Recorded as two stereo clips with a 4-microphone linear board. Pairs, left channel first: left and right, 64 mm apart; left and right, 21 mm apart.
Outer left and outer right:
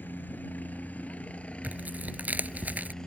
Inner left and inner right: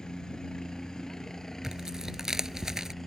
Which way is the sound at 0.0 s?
30° left (ahead or behind).